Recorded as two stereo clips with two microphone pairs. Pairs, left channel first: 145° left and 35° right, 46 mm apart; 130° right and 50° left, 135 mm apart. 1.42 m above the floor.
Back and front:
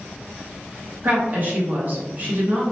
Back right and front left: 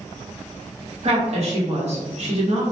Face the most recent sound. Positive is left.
turn(degrees=15)